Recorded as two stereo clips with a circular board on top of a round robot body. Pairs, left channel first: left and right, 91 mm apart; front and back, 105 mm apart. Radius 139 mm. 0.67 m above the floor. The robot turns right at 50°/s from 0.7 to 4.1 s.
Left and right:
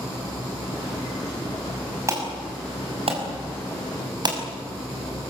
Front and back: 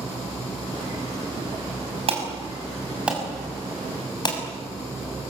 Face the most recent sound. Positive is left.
turn(degrees=-50)